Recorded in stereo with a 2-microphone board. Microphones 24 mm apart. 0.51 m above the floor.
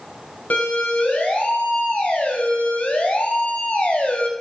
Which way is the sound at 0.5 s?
70° left (ahead or behind).